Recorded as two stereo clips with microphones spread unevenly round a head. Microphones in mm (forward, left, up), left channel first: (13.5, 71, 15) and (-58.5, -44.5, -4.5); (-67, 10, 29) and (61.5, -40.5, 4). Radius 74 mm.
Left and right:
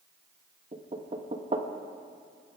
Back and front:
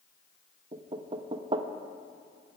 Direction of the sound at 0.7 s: 70° right.